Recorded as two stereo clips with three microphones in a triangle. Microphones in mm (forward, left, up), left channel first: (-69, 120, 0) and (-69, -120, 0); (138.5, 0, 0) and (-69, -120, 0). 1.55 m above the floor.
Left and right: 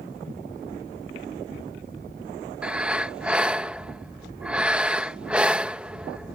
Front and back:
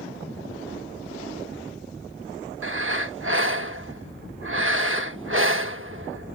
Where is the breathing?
175° right.